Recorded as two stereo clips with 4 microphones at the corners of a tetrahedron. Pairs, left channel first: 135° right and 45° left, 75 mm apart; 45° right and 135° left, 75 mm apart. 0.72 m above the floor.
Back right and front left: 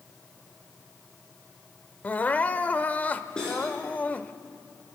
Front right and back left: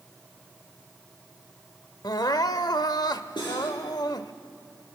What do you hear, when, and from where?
2.0 s crying: 65° right, 0.6 m
3.4 s cutlery clinking: 55° right, 7 m